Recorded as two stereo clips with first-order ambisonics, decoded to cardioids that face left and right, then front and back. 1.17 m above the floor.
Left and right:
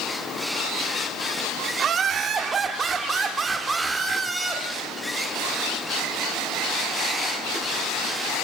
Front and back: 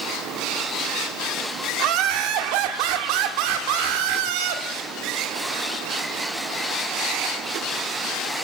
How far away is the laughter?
About 3 m.